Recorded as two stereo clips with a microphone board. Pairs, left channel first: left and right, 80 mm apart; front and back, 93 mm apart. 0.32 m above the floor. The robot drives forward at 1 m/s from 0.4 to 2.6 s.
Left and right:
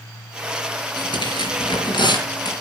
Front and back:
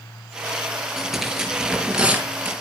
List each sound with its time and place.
1.0 s tearing paper: 90° left, 5 m; by 2.5 s 110° left, 5.5 m